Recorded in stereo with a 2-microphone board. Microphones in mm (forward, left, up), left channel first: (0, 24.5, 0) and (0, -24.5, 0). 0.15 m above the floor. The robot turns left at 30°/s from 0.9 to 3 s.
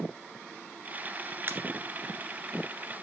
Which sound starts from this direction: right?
A pop, at 1.5 s.